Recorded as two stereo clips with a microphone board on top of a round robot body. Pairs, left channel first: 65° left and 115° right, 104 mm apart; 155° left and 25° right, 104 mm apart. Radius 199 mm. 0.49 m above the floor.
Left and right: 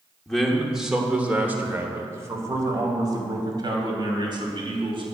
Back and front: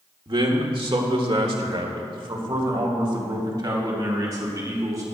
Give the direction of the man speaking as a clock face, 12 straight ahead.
1 o'clock.